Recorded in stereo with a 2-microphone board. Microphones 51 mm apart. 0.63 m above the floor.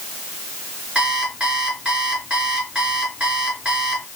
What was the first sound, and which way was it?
An alarm clock, 20° right (ahead or behind).